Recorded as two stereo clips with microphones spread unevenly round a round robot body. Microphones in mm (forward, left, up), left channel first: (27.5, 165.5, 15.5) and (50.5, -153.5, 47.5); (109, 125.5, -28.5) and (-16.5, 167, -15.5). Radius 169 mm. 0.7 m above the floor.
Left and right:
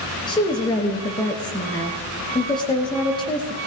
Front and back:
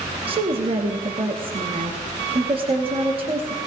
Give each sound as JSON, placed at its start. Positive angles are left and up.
{"t": 0.3, "sound": "a woman speaking", "azimuth_deg": 155, "distance_m": 1.3}